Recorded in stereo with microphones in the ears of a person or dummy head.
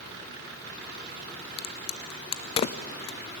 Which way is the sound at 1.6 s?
35° left (ahead or behind).